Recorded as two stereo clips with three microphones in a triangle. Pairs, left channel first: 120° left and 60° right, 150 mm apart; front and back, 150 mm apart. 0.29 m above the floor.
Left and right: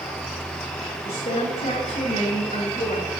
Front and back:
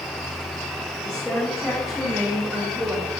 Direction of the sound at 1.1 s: 85° left.